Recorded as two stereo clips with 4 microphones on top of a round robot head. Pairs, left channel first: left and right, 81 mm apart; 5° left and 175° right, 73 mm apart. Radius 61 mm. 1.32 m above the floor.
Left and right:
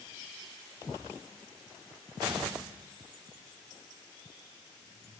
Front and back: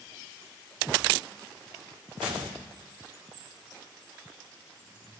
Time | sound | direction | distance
2.2 | a gunshot | 145° right | 1.7 m